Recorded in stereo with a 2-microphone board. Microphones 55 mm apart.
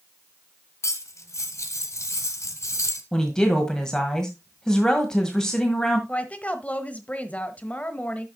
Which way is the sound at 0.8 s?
60° left (ahead or behind).